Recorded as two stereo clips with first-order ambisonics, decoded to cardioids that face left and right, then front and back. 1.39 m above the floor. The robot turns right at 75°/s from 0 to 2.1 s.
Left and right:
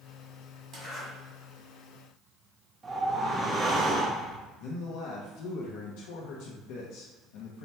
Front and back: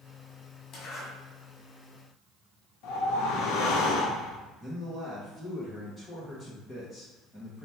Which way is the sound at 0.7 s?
30° right.